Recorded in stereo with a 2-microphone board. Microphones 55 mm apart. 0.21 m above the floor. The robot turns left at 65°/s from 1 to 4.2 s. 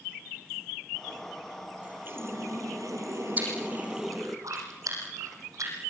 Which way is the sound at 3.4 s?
30° right (ahead or behind).